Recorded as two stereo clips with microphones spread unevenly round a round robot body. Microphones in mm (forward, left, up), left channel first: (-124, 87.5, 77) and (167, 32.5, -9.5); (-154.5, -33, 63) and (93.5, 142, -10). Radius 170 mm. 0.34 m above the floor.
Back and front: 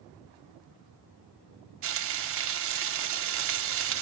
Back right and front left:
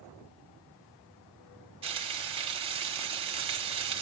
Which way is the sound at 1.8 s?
25° right.